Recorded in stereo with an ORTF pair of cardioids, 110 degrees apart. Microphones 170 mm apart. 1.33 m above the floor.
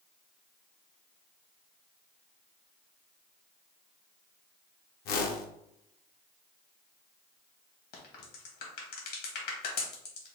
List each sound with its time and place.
5.0 s a whoosh: 65° left, 0.8 m
7.9 s a crack: 65° left, 1.5 m